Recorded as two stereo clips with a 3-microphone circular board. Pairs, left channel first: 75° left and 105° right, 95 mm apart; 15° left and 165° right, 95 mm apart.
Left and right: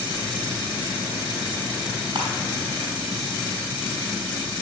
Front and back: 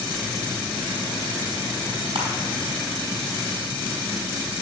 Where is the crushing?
145° right, 4 m.